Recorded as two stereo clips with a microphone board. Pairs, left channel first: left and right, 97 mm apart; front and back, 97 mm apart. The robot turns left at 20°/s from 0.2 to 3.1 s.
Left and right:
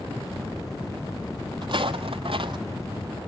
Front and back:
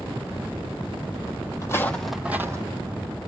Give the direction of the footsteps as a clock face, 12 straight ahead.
2 o'clock.